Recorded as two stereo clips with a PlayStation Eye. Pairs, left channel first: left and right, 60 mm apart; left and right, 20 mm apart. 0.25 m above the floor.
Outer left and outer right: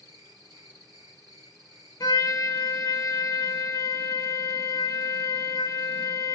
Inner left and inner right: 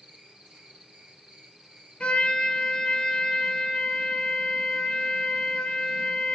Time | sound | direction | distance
0.0 | an insect | 70° right (ahead or behind) | 1.3 m
2.0 | a trumpet | 80° left | 0.7 m